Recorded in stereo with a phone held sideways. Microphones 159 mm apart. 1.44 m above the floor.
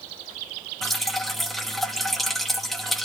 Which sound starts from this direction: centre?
Dripping, at 0.8 s.